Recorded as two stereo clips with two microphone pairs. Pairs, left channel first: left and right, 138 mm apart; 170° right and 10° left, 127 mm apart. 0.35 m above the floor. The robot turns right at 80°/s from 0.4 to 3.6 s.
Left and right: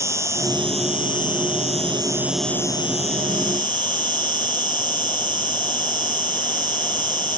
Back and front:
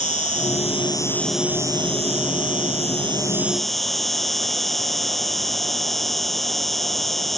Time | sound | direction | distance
0.0 | an insect | 160° right | ?